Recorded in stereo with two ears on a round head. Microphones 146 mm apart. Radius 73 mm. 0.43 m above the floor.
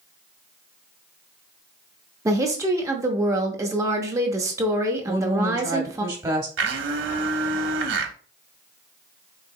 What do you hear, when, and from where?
2.2 s a woman speaking: 20° right (ahead or behind), 0.7 m
5.0 s a woman speaking: 25° right (ahead or behind), 1.0 m
6.6 s a blender: 85° right, 0.7 m